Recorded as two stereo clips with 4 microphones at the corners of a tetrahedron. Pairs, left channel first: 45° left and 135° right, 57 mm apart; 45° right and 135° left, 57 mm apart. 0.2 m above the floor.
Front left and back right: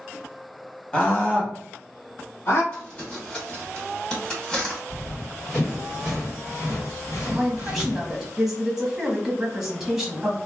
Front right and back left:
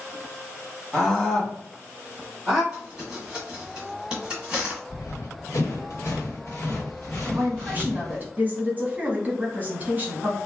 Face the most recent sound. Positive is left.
turn(degrees=145)